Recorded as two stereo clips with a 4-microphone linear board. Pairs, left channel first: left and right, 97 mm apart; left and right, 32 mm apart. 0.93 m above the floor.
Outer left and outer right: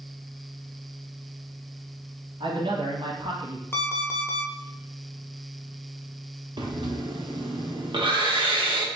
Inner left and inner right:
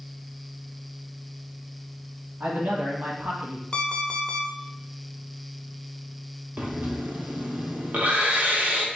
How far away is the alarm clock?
About 0.7 m.